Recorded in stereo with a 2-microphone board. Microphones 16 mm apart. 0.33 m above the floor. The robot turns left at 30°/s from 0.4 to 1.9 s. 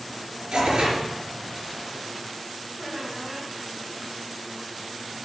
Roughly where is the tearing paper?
Right.